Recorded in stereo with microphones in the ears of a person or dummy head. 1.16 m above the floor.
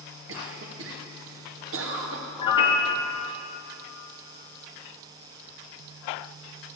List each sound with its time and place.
0.3 s a cough: 60° right (ahead or behind), 1.1 m
2.4 s a piano: 25° left (ahead or behind), 0.7 m